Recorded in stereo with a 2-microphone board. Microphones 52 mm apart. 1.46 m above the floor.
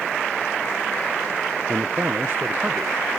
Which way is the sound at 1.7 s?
65° right (ahead or behind).